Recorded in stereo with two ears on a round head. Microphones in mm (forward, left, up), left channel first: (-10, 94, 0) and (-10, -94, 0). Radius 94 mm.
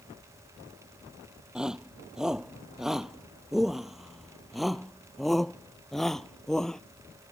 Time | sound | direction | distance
1.6 | a shout | 5° right (ahead or behind) | ?